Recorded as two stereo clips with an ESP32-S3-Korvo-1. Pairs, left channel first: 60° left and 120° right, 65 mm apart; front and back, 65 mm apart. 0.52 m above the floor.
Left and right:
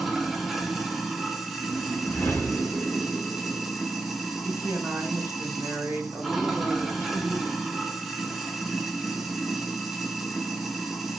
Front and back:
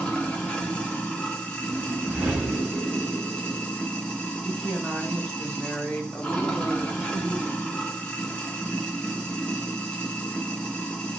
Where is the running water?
40° right, 0.8 m.